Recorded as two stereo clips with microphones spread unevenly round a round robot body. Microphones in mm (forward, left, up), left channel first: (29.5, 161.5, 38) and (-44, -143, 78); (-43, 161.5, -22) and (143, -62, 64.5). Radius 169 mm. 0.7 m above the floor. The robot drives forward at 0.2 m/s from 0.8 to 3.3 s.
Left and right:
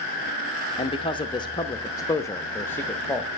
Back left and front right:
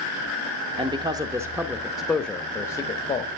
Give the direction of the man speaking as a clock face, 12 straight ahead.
11 o'clock.